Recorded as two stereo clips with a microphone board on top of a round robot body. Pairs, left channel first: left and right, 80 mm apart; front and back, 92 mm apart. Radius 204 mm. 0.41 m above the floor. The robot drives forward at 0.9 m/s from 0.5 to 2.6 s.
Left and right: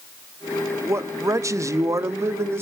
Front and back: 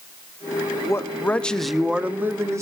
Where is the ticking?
I don't hear ticking.